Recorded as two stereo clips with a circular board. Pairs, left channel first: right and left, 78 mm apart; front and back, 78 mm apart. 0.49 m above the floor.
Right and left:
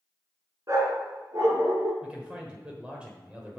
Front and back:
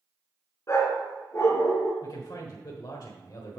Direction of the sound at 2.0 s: 15° left.